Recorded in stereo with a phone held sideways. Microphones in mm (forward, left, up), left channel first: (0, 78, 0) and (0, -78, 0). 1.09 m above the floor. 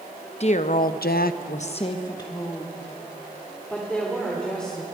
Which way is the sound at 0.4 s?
45° left (ahead or behind).